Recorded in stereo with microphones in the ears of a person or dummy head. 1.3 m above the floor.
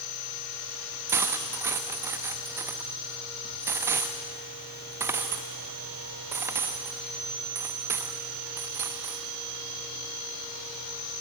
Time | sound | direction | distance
1.1 | cutlery clinking | 10° right (ahead or behind) | 0.7 m